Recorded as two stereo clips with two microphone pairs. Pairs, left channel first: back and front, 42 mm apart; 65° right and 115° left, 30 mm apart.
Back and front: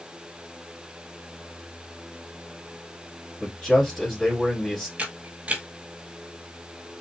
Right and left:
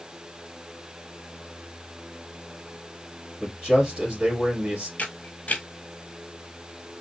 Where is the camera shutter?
50° right, 1.0 m.